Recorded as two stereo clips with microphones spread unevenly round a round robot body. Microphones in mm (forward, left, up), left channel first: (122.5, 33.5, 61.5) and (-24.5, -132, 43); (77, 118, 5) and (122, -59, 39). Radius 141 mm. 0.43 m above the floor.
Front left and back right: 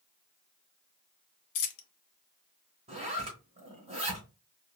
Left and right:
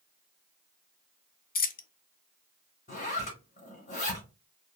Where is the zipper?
160° left, 0.8 m.